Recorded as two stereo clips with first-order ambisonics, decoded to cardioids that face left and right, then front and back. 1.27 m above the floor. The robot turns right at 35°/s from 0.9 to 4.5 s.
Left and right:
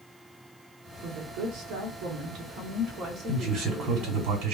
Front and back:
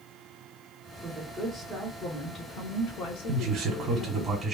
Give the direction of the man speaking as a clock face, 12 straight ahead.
5 o'clock.